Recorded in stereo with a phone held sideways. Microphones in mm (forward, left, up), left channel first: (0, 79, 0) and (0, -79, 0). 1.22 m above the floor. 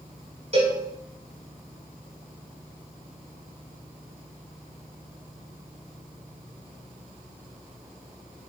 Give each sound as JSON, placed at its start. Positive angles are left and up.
{"t": 0.5, "sound": "a cowbell", "side_deg": -45, "distance_m": 5.5}